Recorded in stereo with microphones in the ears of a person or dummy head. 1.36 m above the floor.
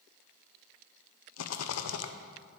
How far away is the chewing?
No chewing in this recording.